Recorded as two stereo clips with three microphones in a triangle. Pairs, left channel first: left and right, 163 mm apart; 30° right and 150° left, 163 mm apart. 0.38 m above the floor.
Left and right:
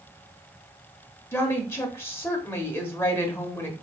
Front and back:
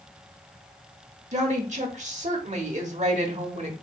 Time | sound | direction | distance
1.3 | a woman speaking | 160° left | 1.0 m